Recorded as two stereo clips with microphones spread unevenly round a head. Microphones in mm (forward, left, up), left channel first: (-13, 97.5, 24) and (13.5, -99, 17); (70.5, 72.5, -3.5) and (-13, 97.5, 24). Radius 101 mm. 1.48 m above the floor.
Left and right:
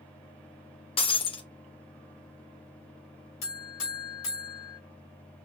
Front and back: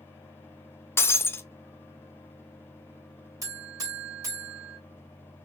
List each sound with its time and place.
1.0 s breaking glass: 55° left, 0.8 m
3.4 s a buzzer: 120° left, 3 m